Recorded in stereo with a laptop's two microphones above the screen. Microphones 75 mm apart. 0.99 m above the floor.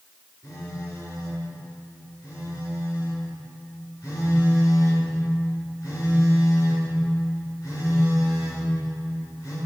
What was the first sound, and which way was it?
A phone buzzing, 55° left (ahead or behind).